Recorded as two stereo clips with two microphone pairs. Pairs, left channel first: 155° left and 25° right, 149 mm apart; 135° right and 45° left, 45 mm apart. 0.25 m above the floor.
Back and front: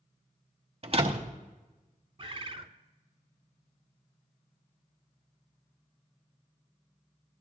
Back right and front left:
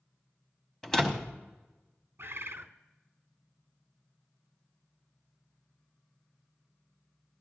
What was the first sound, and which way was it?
A door slam, 60° right.